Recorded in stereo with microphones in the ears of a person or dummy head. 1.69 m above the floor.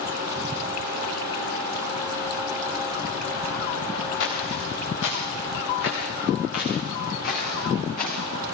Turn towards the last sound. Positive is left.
turn(degrees=50)  # may be behind; listen again after turning